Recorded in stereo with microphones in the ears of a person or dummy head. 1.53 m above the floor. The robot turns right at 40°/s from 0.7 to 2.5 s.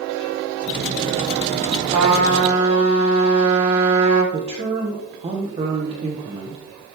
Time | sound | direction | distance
1.9 | a trumpet | 60° right (ahead or behind) | 5 m
4.3 | a man speaking | 30° right (ahead or behind) | 1.1 m